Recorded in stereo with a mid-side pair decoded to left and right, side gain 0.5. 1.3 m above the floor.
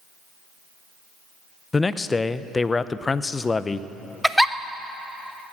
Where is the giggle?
Straight ahead, 0.6 m.